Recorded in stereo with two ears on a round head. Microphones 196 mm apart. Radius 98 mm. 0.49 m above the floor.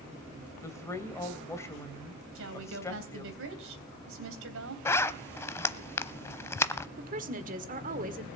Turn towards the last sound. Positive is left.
turn(degrees=-40)  # may be behind; listen again after turning